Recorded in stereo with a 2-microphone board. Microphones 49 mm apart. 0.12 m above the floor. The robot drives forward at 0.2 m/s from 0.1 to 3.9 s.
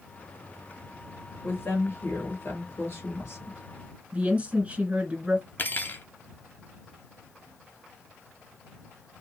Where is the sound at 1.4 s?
50° left (ahead or behind), 2.5 m; by 3.6 s 55° left (ahead or behind), 2.5 m.